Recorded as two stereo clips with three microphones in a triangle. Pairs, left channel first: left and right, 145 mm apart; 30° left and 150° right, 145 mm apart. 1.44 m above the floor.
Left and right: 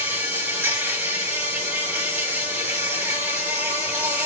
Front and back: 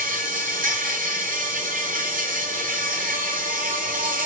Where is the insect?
170° right, 7 m.